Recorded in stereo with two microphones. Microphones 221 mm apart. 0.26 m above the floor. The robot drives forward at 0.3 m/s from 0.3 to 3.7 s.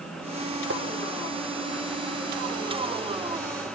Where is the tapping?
60° right (ahead or behind), 3 m.